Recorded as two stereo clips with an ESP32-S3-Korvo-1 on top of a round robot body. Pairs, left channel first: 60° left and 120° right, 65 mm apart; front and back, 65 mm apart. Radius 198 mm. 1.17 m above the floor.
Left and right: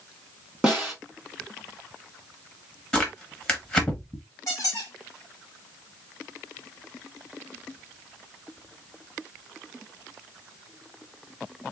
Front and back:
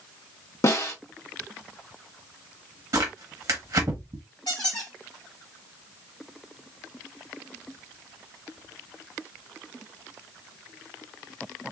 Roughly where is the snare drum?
Ahead right.